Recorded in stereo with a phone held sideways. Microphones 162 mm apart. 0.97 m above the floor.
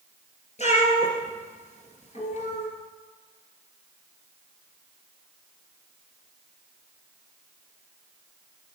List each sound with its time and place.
0.6 s a cat meowing: 40° left (ahead or behind), 2.5 m